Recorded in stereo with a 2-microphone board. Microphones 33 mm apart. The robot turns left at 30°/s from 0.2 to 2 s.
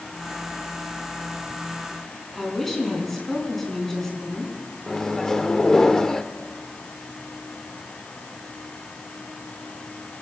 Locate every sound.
2.4 s a woman speaking: 5° left (ahead or behind), 3.5 m
4.9 s a microwave: 15° left (ahead or behind), 0.8 m